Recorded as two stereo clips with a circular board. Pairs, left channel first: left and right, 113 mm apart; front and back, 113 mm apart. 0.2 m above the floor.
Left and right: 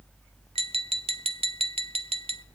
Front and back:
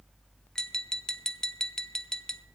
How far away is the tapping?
About 0.7 m.